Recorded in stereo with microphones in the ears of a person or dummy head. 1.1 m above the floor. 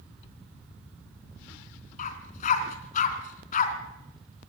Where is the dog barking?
45° left (ahead or behind), 3 m.